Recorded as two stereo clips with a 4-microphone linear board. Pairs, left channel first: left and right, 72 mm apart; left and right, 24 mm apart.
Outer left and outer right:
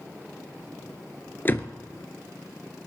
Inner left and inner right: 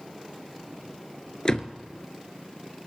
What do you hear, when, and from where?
1.4 s a door slam: 30° left (ahead or behind), 0.9 m